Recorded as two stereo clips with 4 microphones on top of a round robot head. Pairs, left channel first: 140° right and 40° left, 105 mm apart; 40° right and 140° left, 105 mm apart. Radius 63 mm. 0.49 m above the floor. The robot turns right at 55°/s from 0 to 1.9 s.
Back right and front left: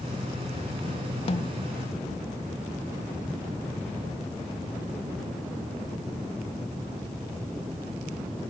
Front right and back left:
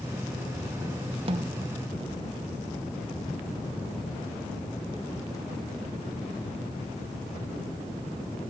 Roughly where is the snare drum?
Behind.